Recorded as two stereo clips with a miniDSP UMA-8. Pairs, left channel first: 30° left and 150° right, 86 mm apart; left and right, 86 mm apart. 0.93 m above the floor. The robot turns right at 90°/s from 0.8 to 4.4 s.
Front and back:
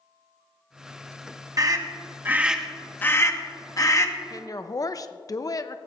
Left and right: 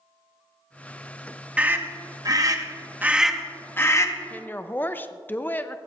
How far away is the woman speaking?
About 0.5 m.